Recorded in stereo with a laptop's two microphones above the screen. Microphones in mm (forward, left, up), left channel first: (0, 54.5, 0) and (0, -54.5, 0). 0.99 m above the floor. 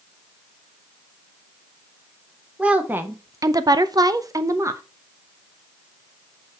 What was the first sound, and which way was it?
A woman speaking, 10° right (ahead or behind).